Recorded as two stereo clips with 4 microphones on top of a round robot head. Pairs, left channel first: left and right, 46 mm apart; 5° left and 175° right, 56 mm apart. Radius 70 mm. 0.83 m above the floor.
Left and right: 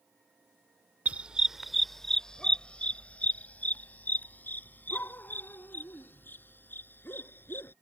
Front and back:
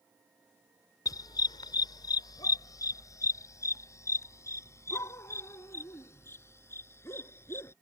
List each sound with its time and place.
1.1 s a dog barking: 30° right; by 7.7 s 50° left